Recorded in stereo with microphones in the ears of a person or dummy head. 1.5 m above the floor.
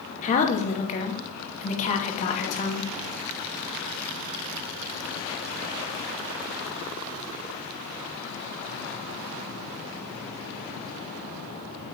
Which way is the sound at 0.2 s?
35° left (ahead or behind).